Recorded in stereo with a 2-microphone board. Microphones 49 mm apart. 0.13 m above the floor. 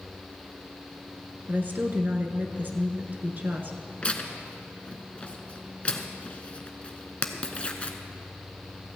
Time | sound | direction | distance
1.5 | a woman speaking | 40° right (ahead or behind) | 1.4 m
4.0 | tearing paper | 25° left (ahead or behind) | 0.9 m